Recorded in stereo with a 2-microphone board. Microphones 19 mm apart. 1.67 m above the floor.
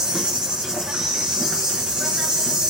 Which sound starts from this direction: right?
An insect, at 0.0 s.